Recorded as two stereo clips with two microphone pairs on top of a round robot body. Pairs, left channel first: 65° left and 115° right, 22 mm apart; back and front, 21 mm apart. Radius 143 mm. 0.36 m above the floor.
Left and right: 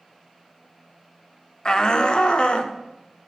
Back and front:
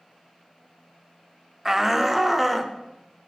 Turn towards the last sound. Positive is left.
turn(degrees=85)